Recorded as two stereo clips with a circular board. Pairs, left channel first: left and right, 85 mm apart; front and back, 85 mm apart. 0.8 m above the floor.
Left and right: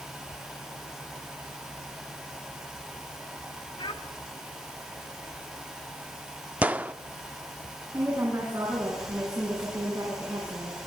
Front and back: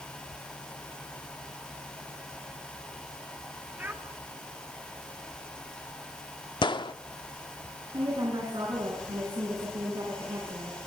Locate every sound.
3.8 s a child speaking: 110° left, 2.5 m
6.6 s a gunshot: 20° right, 0.6 m
7.9 s a woman speaking: 145° right, 8.5 m